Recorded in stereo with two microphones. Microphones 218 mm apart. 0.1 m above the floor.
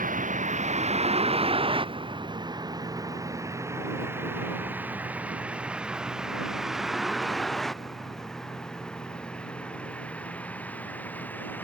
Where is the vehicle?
40° right (ahead or behind); by 11.6 s 10° left (ahead or behind).